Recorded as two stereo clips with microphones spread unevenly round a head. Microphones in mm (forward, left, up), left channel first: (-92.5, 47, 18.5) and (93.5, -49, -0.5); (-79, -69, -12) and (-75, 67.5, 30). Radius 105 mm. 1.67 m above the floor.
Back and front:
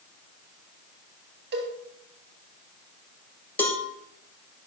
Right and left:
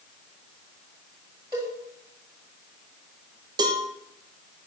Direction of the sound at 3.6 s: 80° left.